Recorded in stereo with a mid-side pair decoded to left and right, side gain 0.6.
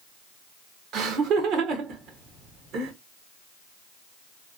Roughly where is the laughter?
Ahead right.